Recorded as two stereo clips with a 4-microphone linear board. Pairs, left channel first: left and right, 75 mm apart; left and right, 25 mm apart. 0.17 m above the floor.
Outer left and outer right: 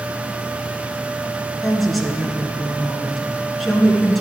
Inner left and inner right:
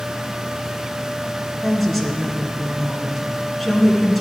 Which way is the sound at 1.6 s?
Centre (ahead or behind).